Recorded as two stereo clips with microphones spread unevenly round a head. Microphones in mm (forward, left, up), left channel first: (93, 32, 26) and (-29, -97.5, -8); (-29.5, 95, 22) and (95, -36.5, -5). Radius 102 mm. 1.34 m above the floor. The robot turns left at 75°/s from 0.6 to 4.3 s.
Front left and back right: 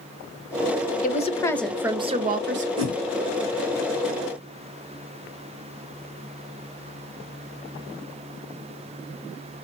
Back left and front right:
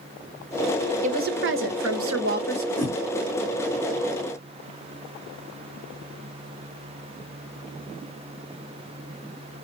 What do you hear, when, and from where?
1.0 s a woman speaking: 5° left, 1.3 m; by 2.7 s 120° right, 1.3 m
2.8 s a whoosh: 140° right, 3 m; by 2.9 s 150° right, 3 m